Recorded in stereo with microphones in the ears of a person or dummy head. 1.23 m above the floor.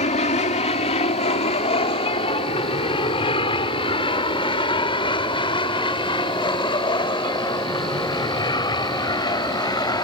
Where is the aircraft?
35° left (ahead or behind); by 10.0 s 20° left (ahead or behind).